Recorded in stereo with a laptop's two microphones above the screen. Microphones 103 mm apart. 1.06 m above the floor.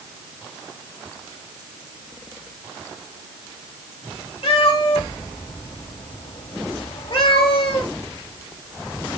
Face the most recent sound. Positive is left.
turn(degrees=65)  # may be behind; listen again after turning